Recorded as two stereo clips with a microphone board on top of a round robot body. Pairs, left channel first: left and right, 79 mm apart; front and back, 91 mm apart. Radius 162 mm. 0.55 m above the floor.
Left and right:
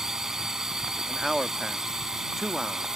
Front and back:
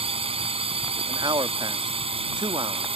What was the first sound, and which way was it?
A drone, 175° right.